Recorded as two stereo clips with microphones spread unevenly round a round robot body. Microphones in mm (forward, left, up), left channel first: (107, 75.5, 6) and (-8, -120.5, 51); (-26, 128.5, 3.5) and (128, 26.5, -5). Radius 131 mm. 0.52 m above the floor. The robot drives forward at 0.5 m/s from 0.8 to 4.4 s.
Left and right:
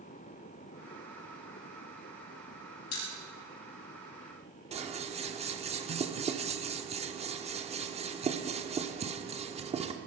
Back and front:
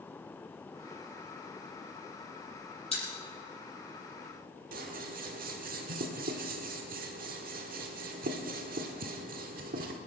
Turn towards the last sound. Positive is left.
turn(degrees=-55)